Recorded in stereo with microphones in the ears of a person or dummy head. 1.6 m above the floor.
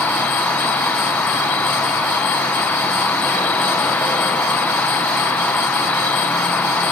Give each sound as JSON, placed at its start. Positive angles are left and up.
{"t": 0.0, "sound": "an insect", "side_deg": 10, "distance_m": 1.0}